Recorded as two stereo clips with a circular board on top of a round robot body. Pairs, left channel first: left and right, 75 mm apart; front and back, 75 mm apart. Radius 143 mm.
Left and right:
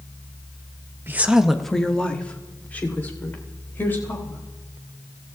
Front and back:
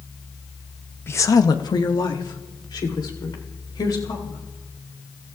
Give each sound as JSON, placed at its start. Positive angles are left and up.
{"t": 1.1, "sound": "a woman speaking", "azimuth_deg": -45, "distance_m": 0.9}